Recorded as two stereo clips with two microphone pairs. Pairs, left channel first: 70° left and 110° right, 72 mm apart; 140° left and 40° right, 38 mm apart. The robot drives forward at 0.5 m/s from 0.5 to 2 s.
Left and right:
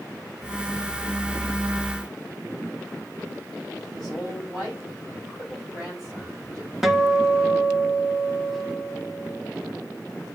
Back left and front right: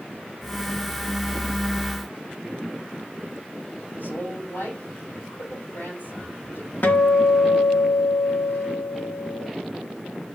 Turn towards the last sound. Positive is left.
turn(degrees=160)